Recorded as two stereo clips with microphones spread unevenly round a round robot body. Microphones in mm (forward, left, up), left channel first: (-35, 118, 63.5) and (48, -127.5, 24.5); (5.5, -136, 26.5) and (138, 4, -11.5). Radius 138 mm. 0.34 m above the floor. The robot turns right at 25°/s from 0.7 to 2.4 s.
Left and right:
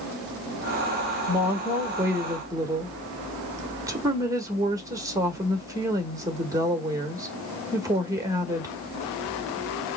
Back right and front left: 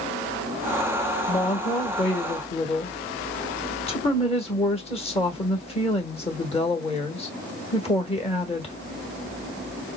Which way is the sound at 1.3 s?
125° right.